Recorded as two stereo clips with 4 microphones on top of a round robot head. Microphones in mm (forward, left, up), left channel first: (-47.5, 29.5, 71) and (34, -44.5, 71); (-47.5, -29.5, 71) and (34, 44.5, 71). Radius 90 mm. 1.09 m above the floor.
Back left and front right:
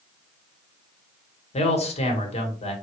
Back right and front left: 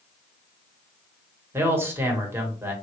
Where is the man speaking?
110° left, 1.0 m.